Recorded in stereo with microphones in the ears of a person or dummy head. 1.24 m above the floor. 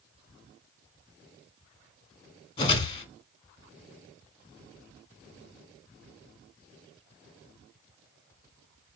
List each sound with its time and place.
2.6 s a whoosh: 30° left (ahead or behind), 1.5 m